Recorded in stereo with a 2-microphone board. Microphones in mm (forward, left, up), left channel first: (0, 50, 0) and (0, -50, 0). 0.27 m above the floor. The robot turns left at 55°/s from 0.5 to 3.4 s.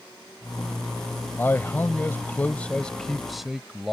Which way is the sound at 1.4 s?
20° left (ahead or behind).